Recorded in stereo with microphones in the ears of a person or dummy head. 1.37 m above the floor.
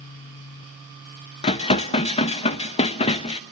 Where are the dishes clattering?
30° left (ahead or behind), 1.1 m.